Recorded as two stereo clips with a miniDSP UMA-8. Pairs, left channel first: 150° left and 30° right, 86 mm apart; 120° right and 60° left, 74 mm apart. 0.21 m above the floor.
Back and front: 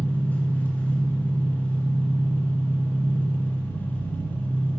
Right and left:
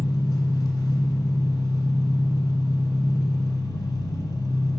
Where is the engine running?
140° right, 0.7 m.